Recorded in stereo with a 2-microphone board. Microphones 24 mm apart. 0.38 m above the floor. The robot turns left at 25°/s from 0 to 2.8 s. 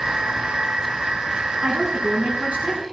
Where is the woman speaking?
60° right (ahead or behind), 3.5 m; by 2.8 s 75° right (ahead or behind), 3.5 m.